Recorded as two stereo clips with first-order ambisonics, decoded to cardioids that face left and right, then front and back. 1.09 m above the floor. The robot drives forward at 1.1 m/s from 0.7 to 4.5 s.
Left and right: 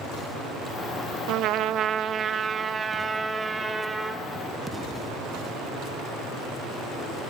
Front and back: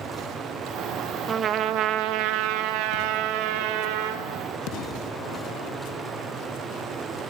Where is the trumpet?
115° right, 0.9 m; by 4.2 s 170° right, 3.5 m.